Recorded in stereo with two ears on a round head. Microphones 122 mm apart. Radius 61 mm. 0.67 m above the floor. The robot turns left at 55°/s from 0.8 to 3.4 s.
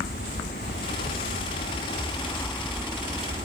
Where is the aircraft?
105° left; by 3.5 s 40° right.